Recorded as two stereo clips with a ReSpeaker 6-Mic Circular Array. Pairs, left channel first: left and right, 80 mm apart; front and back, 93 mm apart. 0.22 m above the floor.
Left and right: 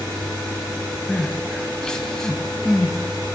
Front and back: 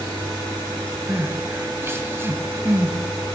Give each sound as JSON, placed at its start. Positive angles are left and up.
{"t": 1.1, "sound": "crying", "azimuth_deg": 165, "distance_m": 1.2}